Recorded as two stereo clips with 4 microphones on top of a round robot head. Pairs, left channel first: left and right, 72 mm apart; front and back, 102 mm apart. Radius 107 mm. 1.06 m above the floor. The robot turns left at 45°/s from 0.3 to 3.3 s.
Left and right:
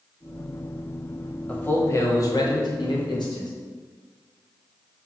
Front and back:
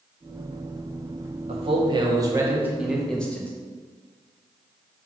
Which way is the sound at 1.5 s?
160° left.